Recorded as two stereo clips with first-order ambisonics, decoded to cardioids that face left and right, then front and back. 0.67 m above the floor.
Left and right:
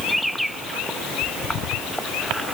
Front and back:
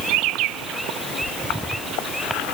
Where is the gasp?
No gasp in this recording.